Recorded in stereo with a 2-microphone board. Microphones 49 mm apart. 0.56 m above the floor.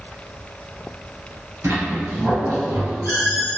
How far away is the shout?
No shout in this recording.